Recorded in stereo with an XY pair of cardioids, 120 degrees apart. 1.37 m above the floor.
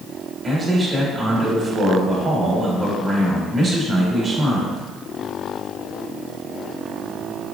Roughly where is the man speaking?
Ahead right.